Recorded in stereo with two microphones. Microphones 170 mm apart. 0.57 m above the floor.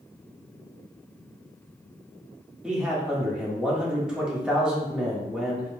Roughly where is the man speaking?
Centre.